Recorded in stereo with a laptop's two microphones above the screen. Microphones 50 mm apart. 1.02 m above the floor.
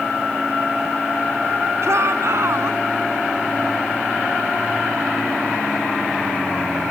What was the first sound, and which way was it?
A shout, 60° right (ahead or behind).